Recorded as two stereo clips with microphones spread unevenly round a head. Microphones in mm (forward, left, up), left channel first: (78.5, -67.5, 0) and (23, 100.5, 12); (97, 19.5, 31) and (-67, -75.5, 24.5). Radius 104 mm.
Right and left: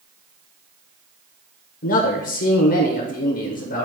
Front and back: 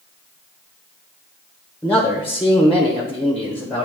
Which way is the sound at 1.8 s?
55° right.